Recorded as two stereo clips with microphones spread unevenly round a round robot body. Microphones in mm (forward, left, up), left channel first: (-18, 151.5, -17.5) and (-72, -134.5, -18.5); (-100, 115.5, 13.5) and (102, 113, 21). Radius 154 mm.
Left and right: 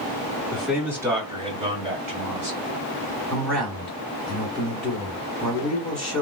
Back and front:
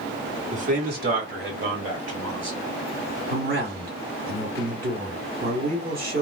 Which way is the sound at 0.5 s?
5° right.